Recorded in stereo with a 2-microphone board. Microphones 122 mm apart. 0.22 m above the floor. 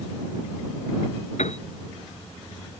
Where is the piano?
70° left (ahead or behind).